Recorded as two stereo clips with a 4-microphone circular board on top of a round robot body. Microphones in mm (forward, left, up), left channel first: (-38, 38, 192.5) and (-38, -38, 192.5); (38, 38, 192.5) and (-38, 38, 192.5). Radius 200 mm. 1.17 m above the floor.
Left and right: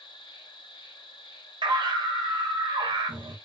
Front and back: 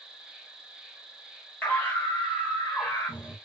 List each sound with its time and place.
0.0 s an insect: 100° left, 1.0 m
1.6 s a scream: 70° right, 1.6 m